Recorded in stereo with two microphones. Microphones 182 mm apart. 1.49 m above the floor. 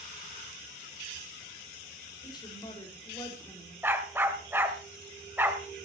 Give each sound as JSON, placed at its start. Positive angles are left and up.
{"t": 2.2, "sound": "a woman speaking", "side_deg": 25, "distance_m": 5.0}
{"t": 3.8, "sound": "a dog barking", "side_deg": -10, "distance_m": 1.8}